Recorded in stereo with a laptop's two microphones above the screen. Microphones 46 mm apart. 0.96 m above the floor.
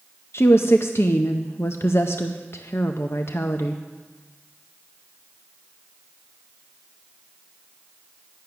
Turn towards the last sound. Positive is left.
turn(degrees=60)  # may be behind; listen again after turning